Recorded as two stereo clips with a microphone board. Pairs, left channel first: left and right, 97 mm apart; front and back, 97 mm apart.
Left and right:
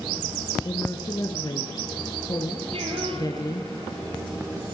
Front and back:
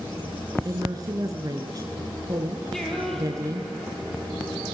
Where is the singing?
85° right, 5 m.